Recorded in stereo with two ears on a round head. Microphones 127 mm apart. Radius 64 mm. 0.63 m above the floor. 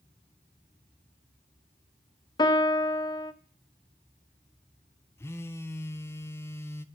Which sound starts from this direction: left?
A piano, at 2.4 s.